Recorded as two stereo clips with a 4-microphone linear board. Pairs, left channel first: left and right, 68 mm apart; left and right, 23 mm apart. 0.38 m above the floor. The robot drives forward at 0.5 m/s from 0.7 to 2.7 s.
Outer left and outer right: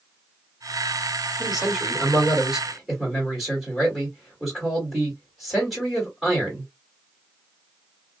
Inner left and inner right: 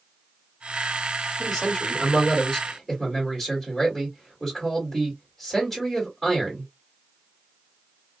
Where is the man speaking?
5° right (ahead or behind), 1.4 m.